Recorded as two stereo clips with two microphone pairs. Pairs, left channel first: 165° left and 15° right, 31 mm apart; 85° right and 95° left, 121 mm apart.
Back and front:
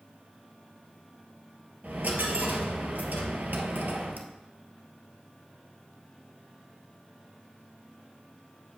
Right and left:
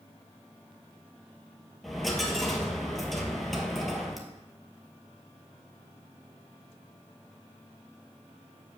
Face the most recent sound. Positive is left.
turn(degrees=5)